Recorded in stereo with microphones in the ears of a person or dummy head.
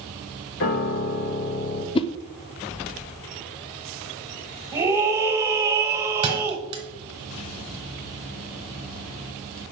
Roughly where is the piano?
Left.